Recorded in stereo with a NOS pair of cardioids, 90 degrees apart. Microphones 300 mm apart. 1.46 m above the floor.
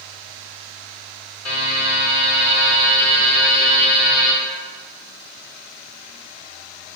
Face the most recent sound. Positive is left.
turn(degrees=65)